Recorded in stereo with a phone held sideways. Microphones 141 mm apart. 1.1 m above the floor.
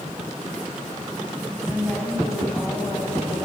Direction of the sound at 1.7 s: 10° left (ahead or behind).